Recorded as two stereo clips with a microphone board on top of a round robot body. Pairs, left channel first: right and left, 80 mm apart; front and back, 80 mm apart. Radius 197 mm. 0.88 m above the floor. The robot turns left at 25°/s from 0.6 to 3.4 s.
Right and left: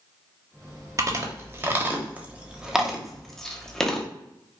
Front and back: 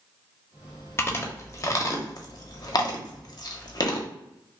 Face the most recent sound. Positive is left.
turn(degrees=-10)